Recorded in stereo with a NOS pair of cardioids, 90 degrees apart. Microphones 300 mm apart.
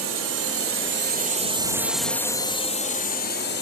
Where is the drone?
65° right; by 3.6 s 40° left.